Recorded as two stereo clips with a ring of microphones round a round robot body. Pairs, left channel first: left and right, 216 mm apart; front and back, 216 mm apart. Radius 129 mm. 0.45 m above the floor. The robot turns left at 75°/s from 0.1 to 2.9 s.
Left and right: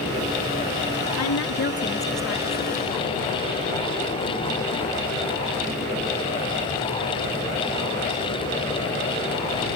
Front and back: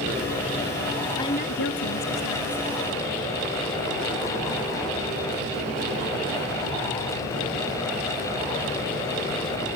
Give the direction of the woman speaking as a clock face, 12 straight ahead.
9 o'clock.